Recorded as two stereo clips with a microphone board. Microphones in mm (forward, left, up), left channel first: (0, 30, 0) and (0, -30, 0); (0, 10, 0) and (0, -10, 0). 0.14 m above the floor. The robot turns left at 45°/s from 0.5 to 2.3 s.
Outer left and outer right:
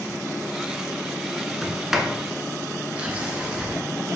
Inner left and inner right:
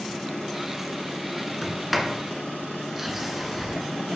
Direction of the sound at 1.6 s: 5° left (ahead or behind).